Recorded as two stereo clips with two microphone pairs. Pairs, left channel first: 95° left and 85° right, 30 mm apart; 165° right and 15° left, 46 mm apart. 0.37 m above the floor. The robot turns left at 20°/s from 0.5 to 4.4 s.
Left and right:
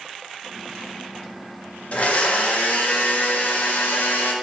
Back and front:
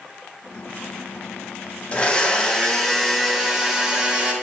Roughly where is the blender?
Behind left.